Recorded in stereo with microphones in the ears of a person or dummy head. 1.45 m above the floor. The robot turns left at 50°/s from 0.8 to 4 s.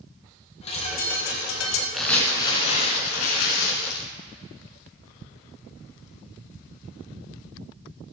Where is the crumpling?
Straight behind, 2.5 m; by 4.0 s 75° left, 2.5 m.